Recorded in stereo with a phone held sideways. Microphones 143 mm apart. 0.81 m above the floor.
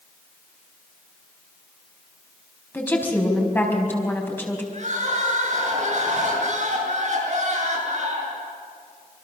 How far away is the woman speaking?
About 4.5 m.